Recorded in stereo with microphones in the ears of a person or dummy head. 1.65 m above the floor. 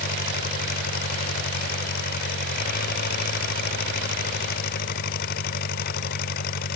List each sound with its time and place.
0.0 s an engine running: 50° left (ahead or behind)